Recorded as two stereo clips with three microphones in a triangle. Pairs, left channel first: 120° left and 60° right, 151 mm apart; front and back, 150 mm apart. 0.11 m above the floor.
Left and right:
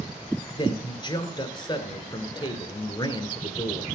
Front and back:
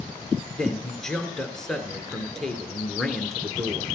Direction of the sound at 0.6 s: 85° left.